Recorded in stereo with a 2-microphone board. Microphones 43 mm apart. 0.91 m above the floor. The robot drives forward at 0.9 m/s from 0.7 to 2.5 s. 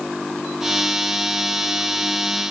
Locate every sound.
Only background noise.